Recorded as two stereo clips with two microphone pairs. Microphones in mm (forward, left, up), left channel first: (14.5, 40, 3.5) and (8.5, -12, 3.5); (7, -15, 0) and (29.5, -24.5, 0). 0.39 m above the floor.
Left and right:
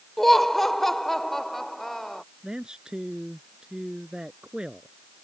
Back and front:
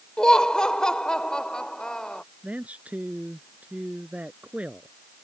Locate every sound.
0.2 s laughter: 165° left
2.4 s a man speaking: 20° right